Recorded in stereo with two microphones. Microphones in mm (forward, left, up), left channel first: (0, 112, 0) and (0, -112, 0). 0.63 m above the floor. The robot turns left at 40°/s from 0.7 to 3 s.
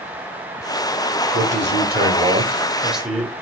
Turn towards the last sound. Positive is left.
turn(degrees=180)